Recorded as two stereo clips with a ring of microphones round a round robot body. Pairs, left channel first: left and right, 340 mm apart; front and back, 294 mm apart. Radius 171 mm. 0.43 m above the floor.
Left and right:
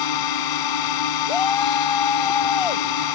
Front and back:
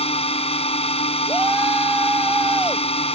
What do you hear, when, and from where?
0.0 s a drone: 70° left
1.3 s a shout: 95° left